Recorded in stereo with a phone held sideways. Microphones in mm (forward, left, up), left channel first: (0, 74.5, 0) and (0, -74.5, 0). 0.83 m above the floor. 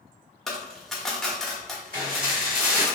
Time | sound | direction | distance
0.5 | a dropped coin | 5° left (ahead or behind) | 0.6 m
1.9 | dishes clattering | 65° right (ahead or behind) | 1.7 m